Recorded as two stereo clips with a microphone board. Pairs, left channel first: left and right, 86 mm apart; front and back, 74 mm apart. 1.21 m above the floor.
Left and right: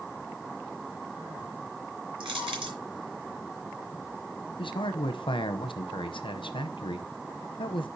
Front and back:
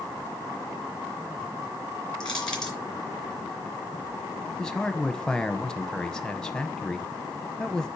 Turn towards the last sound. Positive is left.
turn(degrees=80)